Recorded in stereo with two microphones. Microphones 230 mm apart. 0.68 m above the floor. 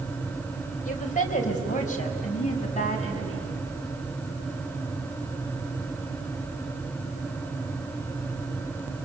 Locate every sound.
0.8 s a woman speaking: 35° left (ahead or behind), 3 m